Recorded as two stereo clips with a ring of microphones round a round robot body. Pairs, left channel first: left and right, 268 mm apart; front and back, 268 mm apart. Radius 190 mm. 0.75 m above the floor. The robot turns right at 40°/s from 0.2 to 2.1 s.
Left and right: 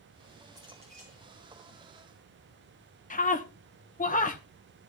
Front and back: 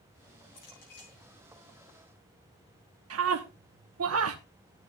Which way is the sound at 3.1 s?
150° left.